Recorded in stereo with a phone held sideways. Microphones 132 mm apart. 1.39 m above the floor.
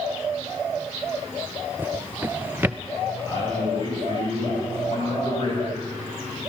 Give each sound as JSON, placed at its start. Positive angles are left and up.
{"t": 1.8, "sound": "a drawer", "side_deg": -15, "distance_m": 0.5}
{"t": 3.2, "sound": "a man speaking", "side_deg": 35, "distance_m": 8.5}